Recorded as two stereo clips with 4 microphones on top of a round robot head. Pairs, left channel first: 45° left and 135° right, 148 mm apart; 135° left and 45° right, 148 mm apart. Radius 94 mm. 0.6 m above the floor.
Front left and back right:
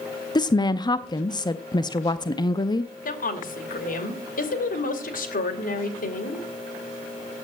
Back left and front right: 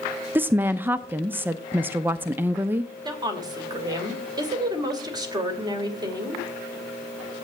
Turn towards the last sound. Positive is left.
turn(degrees=20)